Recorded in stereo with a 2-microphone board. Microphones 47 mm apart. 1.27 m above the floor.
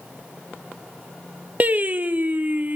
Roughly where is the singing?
Right.